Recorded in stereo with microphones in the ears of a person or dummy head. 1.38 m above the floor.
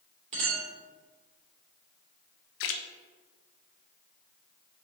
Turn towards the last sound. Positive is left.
turn(degrees=70)  # may be behind; listen again after turning